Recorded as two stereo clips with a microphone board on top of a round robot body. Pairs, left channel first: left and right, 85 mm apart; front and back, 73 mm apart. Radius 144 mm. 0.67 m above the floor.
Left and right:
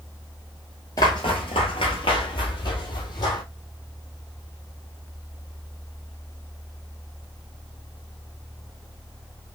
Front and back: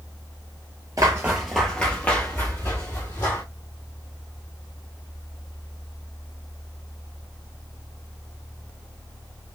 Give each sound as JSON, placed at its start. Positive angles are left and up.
{"t": 1.0, "sound": "footsteps", "azimuth_deg": 130, "distance_m": 0.7}